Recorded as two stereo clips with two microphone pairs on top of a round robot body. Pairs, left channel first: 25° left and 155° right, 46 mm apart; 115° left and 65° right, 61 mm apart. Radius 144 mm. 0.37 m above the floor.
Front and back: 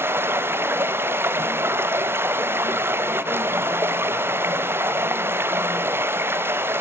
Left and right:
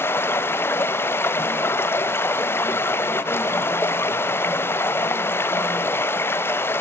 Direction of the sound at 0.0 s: 170° left.